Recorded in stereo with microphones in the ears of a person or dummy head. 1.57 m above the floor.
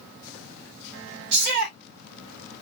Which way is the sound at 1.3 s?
50° right (ahead or behind).